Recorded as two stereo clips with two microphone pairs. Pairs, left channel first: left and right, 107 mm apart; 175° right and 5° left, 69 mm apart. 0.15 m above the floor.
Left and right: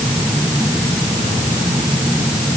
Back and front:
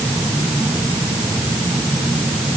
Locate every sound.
Only background noise.